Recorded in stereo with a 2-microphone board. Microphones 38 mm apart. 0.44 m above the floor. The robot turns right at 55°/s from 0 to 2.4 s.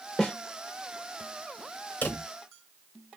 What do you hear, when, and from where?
0.2 s a snare drum: 5° left (ahead or behind), 1.0 m; by 0.3 s 10° left (ahead or behind), 1.0 m
2.0 s a drawer: 55° left (ahead or behind), 0.8 m; by 2.2 s 45° left (ahead or behind), 0.8 m